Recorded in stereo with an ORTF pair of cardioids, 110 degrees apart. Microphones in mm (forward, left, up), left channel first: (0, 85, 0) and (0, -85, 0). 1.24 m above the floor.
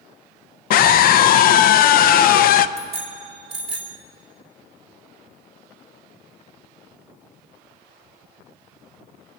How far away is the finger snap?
I don't hear a finger snap.